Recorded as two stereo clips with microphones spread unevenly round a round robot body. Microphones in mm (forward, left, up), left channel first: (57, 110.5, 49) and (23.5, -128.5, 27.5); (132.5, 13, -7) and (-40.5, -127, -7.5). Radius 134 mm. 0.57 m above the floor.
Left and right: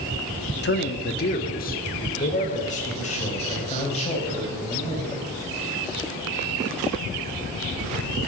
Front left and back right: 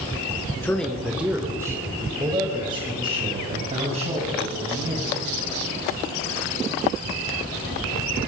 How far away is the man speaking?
About 1.0 m.